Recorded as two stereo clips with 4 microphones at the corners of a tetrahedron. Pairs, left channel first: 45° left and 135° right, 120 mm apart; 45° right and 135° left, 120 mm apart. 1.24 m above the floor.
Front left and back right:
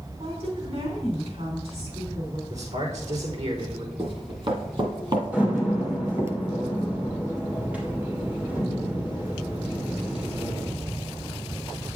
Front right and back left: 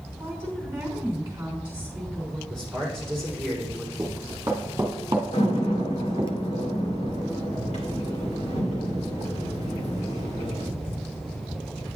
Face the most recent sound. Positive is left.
turn(degrees=-60)